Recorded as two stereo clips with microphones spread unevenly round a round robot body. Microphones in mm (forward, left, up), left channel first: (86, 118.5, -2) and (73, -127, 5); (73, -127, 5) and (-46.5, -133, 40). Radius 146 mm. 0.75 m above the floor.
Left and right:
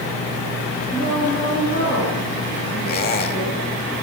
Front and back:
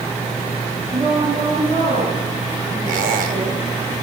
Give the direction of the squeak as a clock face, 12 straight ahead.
7 o'clock.